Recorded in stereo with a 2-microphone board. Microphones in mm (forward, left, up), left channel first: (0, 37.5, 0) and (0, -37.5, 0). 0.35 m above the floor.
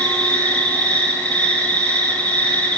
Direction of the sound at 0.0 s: 20° left (ahead or behind).